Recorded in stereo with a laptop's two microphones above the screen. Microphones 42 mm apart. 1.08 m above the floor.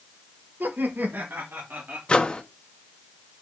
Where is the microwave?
20° left (ahead or behind), 1.0 m.